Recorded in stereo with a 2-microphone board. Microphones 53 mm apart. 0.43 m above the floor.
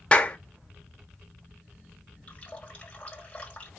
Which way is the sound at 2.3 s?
25° left (ahead or behind).